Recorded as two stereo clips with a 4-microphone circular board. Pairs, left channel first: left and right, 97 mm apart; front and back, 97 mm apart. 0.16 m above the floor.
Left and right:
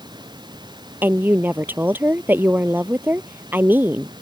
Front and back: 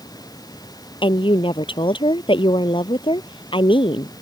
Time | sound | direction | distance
0.0 | running water | 50° right | ?
1.0 | a woman speaking | 20° right | ?